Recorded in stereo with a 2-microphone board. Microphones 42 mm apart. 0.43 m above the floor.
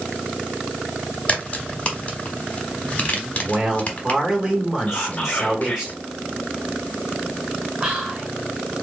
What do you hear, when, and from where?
1.3 s a crack: 30° left (ahead or behind), 1.0 m
3.4 s a man speaking: 20° right (ahead or behind), 1.3 m
4.9 s whispering: 35° left (ahead or behind), 1.0 m
7.8 s whispering: 30° right (ahead or behind), 1.5 m